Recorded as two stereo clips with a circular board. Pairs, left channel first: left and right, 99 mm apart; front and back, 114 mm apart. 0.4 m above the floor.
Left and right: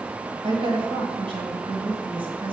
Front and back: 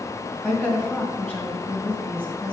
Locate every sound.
0.4 s a woman speaking: 75° right, 2 m